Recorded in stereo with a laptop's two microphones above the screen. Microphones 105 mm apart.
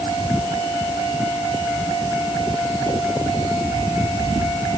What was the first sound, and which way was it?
Only background noise.